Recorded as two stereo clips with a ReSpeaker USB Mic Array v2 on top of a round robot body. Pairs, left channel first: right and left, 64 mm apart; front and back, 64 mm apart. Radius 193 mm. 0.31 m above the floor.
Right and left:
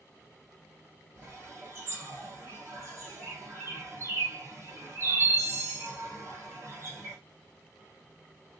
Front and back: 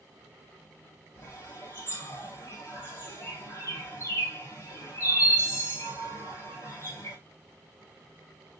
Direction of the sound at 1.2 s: 40° left.